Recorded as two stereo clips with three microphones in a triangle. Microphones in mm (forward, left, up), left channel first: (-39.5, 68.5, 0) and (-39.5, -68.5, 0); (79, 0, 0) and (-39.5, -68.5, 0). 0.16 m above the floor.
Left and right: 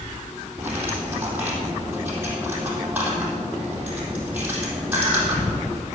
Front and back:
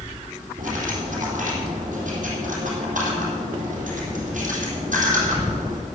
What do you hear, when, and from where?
0.6 s cutlery clinking: 165° right, 3.5 m